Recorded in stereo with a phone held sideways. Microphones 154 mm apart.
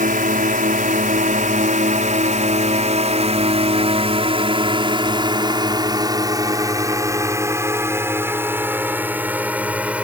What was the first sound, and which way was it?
A drone, 65° right (ahead or behind).